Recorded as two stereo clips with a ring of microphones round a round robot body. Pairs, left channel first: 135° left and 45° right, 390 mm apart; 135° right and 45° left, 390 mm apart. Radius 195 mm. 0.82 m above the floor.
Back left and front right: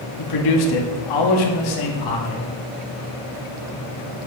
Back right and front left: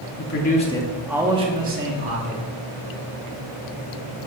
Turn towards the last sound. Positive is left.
turn(degrees=95)